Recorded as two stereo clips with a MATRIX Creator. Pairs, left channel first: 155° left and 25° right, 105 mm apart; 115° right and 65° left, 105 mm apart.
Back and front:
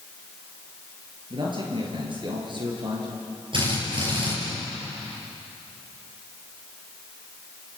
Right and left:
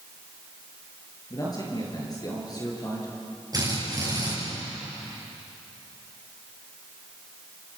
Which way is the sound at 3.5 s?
15° left.